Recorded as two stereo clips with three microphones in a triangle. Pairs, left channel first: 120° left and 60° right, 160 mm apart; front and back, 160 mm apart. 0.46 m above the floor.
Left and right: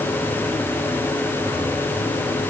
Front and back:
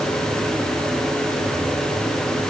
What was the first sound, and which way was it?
Only background noise.